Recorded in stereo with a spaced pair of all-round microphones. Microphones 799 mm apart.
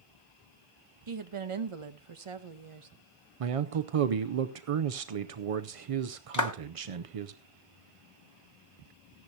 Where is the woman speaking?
40° right (ahead or behind), 0.9 m.